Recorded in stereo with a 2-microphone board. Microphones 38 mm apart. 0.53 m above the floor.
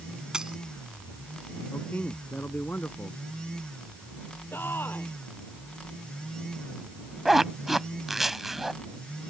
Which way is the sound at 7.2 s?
10° right (ahead or behind).